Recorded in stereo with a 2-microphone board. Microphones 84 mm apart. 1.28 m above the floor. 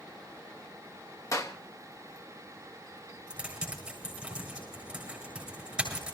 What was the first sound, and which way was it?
A clap, 40° left (ahead or behind).